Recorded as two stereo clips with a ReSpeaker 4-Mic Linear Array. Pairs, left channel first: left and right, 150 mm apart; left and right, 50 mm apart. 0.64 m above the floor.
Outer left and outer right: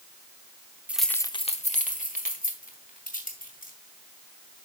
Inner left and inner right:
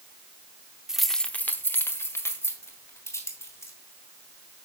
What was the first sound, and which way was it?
Keys jangling, 10° right (ahead or behind).